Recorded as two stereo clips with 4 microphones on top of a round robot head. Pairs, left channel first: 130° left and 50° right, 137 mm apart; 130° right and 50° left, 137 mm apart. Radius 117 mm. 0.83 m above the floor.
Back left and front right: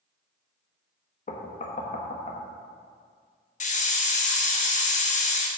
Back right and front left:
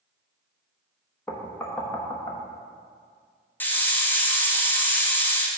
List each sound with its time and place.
1.3 s knocking: 155° left, 1.2 m
3.6 s a hiss: 155° left, 1.2 m